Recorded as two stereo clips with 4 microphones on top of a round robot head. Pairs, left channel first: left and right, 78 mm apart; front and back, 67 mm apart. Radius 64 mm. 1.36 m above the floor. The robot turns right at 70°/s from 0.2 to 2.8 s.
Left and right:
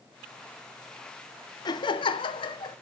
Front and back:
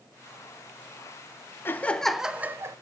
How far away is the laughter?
About 0.9 m.